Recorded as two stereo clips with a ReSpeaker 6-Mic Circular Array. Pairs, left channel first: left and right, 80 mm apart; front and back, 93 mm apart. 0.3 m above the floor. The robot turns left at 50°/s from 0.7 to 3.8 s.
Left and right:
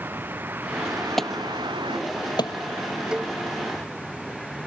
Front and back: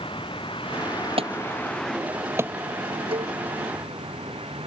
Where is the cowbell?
170° right; by 3.4 s straight behind.